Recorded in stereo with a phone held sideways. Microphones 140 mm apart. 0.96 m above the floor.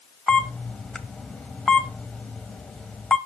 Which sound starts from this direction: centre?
A camera shutter, at 0.3 s.